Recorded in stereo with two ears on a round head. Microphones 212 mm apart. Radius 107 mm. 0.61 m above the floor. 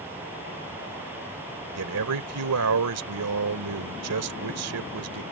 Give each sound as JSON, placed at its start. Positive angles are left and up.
{"t": 1.8, "sound": "a man speaking", "side_deg": -70}